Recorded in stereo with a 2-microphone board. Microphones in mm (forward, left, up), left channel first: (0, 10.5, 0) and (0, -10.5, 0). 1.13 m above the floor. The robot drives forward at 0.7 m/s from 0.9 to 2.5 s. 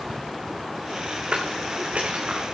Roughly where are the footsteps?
Right.